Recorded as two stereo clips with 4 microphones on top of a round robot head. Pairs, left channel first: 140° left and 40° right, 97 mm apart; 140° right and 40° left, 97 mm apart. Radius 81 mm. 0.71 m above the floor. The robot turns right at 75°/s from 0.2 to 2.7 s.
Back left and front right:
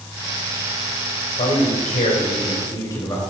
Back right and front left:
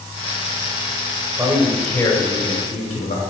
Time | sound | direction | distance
1.4 | a man speaking | 100° left | 2.5 m